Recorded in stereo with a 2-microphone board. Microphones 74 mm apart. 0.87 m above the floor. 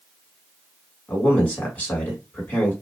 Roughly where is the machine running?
No machine running in this recording.